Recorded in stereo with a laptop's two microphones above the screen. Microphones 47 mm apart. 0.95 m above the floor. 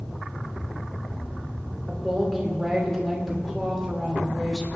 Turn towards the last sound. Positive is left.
turn(degrees=0)  # may be behind; listen again after turning